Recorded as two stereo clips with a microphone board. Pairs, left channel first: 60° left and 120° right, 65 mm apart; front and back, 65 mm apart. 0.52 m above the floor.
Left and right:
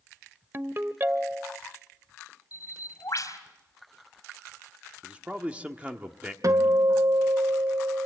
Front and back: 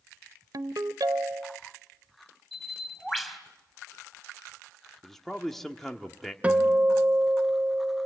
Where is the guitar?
115° right, 1.8 m.